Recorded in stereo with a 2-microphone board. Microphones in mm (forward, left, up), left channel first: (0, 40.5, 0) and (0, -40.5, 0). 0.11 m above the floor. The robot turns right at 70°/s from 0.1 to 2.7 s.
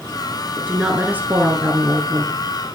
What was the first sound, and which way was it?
A woman speaking, 15° right (ahead or behind).